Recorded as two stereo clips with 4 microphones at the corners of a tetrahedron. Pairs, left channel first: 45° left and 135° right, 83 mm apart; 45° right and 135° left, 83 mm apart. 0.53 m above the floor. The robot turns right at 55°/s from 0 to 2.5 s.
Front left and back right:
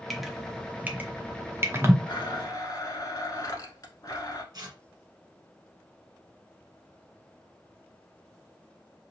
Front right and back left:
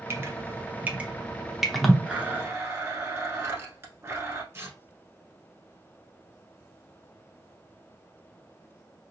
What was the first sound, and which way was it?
Dripping, 135° left.